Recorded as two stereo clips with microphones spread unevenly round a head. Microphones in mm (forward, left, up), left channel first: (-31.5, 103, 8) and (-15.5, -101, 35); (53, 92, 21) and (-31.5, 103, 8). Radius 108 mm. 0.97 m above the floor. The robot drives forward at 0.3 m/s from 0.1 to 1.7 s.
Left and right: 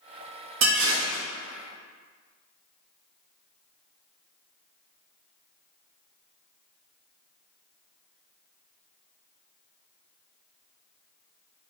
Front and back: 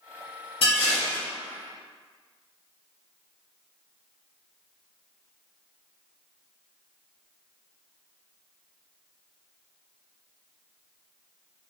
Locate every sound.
0.6 s dishes clattering: 65° right, 1.8 m; by 1.2 s 70° right, 1.7 m